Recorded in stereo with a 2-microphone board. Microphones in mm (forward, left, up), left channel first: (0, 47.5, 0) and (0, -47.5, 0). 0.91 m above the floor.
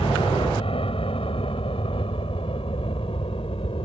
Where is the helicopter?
70° left (ahead or behind).